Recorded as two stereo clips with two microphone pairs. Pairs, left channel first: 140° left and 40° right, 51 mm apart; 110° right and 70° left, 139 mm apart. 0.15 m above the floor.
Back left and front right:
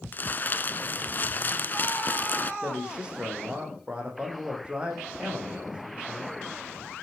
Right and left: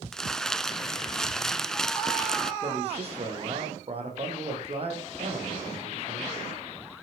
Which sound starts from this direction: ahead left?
A man speaking, at 2.6 s.